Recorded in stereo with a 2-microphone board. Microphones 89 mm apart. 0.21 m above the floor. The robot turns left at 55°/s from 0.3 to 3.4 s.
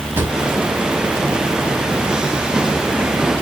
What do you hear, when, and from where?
0.2 s a drawer: 25° right (ahead or behind), 0.7 m; by 3.4 s 25° left (ahead or behind), 0.7 m